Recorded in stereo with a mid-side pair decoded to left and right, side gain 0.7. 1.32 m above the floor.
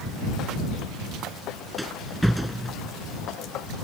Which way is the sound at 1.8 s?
Straight ahead.